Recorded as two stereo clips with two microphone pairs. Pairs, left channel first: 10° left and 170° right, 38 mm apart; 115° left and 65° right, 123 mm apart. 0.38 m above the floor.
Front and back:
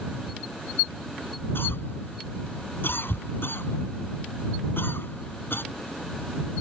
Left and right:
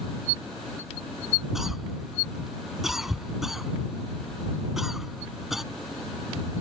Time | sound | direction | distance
1.6 | a cough | 20° left | ?